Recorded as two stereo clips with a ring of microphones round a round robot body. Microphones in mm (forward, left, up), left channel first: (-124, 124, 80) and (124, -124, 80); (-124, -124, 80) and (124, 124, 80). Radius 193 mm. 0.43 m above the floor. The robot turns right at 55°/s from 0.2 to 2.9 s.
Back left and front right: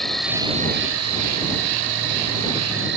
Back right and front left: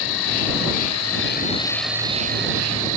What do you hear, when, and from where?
0.0 s an insect: 135° right; by 3.0 s 15° left